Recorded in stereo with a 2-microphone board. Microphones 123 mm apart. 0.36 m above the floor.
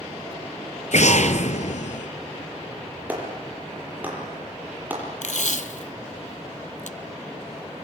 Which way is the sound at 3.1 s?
15° right (ahead or behind).